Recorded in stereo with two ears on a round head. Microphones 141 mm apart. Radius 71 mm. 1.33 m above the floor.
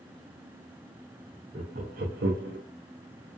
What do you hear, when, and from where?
1.5 s laughter: 40° right (ahead or behind), 0.5 m; by 2.6 s 75° right (ahead or behind), 0.6 m